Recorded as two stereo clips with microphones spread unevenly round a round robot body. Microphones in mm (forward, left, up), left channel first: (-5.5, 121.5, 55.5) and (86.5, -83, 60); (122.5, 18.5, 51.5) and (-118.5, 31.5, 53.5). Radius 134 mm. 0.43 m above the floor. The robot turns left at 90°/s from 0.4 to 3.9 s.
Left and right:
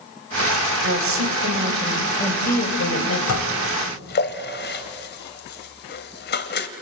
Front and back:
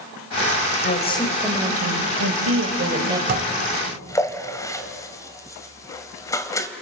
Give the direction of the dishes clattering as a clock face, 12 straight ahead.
8 o'clock.